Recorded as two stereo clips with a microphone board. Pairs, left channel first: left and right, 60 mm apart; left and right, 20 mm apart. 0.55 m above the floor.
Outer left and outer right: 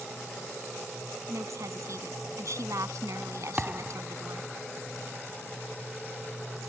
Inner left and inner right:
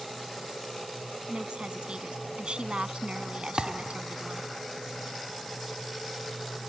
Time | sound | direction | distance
1.3 | a woman speaking | 60° right (ahead or behind) | ?
3.6 | a thud | 25° right (ahead or behind) | ?